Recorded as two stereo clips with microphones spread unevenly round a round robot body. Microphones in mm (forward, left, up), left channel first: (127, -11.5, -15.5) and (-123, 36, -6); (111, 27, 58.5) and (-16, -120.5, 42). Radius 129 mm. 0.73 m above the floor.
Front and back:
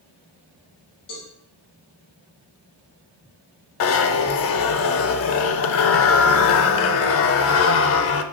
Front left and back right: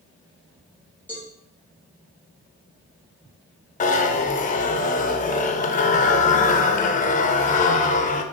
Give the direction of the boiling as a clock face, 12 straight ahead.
No boiling in this recording.